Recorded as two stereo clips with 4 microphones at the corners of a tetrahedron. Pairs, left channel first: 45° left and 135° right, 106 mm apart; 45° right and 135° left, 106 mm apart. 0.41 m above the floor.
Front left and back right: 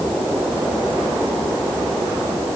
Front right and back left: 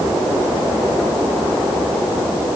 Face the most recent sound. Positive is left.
No sound to turn to.